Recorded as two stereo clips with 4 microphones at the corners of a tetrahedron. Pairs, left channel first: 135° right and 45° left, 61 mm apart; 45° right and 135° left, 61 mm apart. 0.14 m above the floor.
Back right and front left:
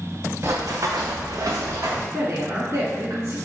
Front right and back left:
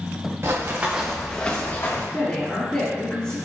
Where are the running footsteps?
90° left, 0.9 m; by 2.0 s 5° left, 1.2 m.